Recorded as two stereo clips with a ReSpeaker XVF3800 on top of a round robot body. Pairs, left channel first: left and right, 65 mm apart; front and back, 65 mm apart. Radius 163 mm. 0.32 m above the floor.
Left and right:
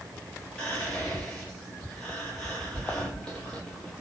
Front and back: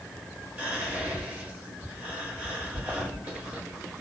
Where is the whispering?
150° left, 1.6 m.